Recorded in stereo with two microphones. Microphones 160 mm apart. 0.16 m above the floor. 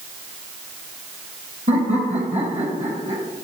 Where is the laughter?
50° right (ahead or behind), 4 m; by 3.2 s 40° right (ahead or behind), 4.5 m.